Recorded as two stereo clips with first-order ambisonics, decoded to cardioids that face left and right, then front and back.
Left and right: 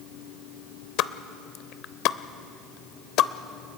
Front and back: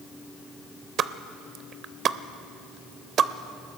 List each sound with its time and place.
1.0 s a pop: 125° left, 0.6 m